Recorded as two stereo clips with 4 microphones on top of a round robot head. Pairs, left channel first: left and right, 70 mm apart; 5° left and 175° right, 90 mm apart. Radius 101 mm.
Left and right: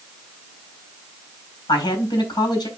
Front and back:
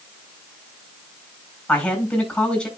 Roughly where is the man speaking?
Left.